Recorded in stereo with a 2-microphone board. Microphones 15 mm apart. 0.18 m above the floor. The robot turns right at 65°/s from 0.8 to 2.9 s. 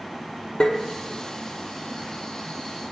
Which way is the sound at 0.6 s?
60° left (ahead or behind).